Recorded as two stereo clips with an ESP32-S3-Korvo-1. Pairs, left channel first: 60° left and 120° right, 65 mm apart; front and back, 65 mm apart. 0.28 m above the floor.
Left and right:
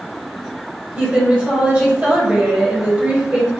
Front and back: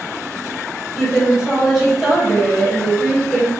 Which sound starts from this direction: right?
A woman speaking, at 1.0 s.